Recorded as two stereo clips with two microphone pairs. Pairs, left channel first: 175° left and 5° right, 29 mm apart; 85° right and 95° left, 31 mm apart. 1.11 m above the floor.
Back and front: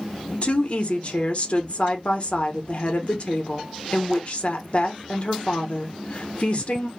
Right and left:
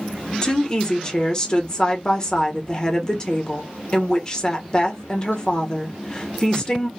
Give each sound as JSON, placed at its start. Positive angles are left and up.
{"t": 0.4, "sound": "a woman speaking", "azimuth_deg": -150, "distance_m": 0.8}